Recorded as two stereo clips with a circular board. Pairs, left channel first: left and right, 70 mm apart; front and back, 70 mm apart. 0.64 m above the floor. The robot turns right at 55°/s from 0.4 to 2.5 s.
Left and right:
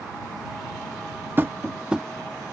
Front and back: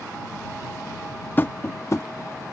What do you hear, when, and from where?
1.4 s tapping: 50° right; by 2.1 s 10° right